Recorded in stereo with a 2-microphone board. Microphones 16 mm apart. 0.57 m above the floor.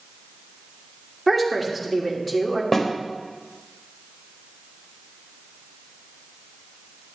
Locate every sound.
1.3 s a woman speaking: centre (ahead or behind), 1.5 m
2.7 s a snare drum: 15° left (ahead or behind), 1.2 m